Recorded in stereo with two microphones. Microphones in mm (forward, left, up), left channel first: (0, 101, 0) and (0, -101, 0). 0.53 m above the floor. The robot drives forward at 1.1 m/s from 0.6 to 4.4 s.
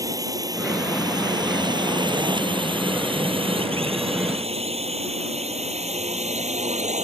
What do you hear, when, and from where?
0.0 s a drone: 15° right (ahead or behind); by 7.0 s 35° right (ahead or behind)